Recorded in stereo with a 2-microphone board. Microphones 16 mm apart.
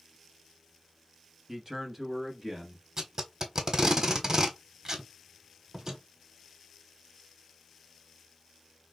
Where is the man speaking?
30° right (ahead or behind), 1.1 m; by 2.9 s 20° right (ahead or behind), 1.7 m.